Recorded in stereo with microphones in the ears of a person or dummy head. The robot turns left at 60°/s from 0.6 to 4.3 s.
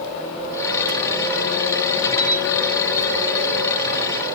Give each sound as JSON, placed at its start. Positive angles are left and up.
{"t": 2.2, "sound": "a camera shutter", "side_deg": 70, "distance_m": 6.5}